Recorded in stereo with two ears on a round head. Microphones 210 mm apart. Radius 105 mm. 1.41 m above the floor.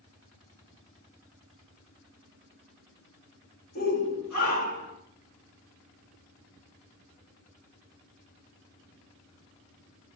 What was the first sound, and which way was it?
A shout, 40° left (ahead or behind).